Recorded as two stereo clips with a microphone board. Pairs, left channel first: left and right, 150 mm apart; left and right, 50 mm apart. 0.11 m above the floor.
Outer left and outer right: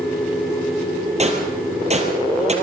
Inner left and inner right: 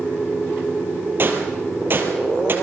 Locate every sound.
1.2 s a gunshot: 45° right (ahead or behind), 2.5 m